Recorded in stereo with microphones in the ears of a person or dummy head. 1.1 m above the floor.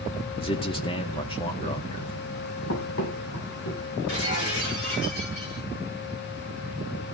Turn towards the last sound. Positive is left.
turn(degrees=55)  # may be behind; listen again after turning